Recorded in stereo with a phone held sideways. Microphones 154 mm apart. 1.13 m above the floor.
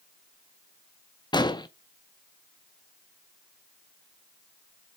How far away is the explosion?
About 0.5 m.